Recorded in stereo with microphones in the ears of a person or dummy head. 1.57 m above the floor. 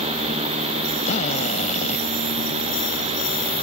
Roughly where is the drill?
Left.